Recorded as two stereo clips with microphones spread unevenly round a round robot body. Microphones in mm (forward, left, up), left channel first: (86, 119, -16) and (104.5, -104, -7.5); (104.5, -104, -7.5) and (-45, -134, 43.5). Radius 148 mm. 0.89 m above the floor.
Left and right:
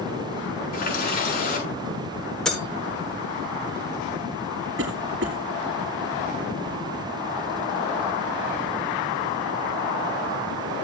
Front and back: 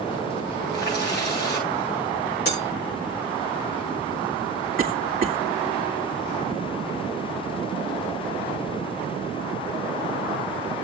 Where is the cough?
130° right, 2 m.